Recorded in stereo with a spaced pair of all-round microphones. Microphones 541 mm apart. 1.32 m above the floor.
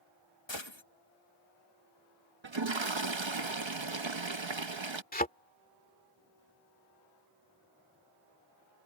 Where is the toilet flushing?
55° right (ahead or behind).